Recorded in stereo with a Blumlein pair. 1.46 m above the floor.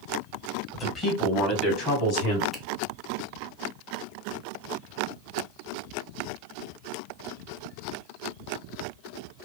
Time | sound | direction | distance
0.7 | a man speaking | 15° left | 1.4 m
2.5 | a finger snap | 10° left | 1.0 m